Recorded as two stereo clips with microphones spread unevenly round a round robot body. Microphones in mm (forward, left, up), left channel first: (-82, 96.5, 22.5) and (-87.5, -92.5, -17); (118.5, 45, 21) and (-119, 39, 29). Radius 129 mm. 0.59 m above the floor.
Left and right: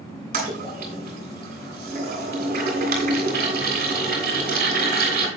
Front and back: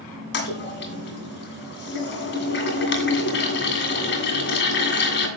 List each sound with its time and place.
0.3 s a toilet flushing: 40° right, 2.5 m